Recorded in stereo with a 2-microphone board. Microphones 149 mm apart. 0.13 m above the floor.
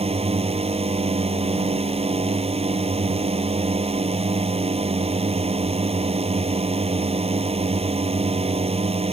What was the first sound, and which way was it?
A drone, 45° right (ahead or behind).